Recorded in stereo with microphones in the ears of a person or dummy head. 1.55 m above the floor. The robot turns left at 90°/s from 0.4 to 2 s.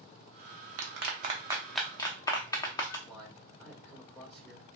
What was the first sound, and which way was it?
A clap, 75° right (ahead or behind).